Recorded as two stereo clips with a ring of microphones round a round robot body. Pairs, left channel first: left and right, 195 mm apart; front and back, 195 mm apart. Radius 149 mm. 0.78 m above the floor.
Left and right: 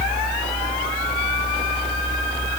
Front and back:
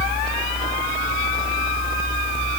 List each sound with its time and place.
Only background noise.